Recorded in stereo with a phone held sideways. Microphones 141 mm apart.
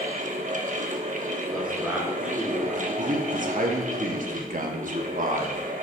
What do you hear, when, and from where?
0.0 s a fan: 60° right (ahead or behind), 1.0 m
1.5 s a man speaking: 10° right (ahead or behind), 3 m
3.0 s a man speaking: 70° right (ahead or behind), 1.2 m